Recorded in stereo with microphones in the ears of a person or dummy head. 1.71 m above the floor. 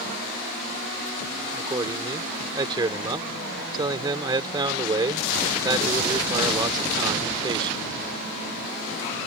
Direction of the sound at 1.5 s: 20° right (ahead or behind).